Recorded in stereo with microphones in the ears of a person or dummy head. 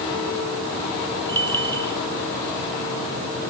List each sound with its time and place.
1.3 s a bell: 10° left (ahead or behind)